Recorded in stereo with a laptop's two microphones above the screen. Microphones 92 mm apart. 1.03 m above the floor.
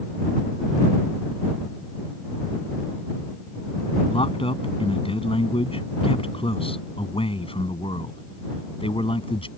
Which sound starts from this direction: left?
A man speaking, at 4.1 s.